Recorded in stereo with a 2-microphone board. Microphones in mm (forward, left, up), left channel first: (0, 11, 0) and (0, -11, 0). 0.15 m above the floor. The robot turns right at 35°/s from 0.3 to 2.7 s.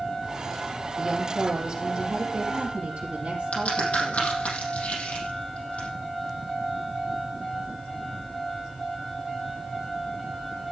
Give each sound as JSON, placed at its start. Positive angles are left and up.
{"t": 1.0, "sound": "a woman speaking", "azimuth_deg": -170, "distance_m": 4.0}
{"t": 3.5, "sound": "a crack", "side_deg": 75, "distance_m": 6.0}